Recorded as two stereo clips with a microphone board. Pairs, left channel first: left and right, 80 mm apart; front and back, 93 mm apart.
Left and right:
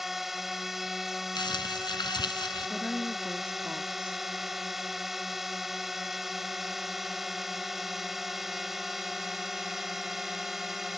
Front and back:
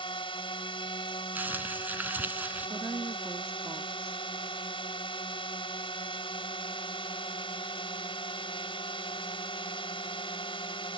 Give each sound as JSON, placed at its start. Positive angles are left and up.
{"t": 0.0, "sound": "a drone", "azimuth_deg": -5}
{"t": 1.4, "sound": "crumpling", "azimuth_deg": 110}
{"t": 2.7, "sound": "a woman speaking", "azimuth_deg": -155}